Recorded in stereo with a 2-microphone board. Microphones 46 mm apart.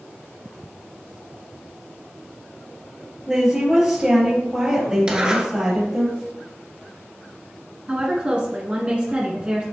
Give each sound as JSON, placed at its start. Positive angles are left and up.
{"t": 3.3, "sound": "a woman speaking", "side_deg": -15, "distance_m": 3.0}
{"t": 5.1, "sound": "a zipper", "side_deg": -20, "distance_m": 1.4}
{"t": 7.9, "sound": "a woman speaking", "side_deg": -25, "distance_m": 1.3}